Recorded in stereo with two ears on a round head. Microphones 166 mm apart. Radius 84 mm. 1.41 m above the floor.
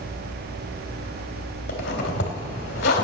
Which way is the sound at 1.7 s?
60° left (ahead or behind).